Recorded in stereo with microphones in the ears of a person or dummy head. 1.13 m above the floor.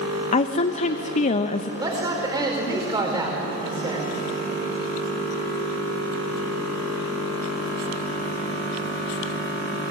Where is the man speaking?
20° right (ahead or behind), 4.5 m.